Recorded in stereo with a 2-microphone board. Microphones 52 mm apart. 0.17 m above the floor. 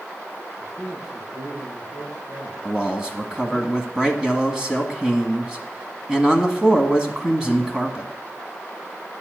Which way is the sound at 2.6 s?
15° right (ahead or behind).